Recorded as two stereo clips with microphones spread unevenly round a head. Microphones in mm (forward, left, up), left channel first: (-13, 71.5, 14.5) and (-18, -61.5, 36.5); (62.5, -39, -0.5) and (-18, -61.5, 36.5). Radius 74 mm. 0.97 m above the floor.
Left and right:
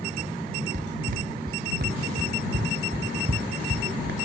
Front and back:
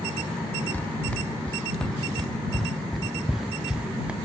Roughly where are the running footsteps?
Ahead right.